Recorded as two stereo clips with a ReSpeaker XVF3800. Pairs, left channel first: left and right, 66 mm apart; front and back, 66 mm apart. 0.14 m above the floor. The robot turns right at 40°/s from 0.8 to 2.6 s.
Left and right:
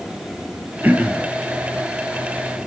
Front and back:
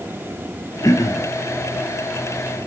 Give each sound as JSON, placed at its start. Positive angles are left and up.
{"t": 0.8, "sound": "throat clearing", "azimuth_deg": -30, "distance_m": 1.2}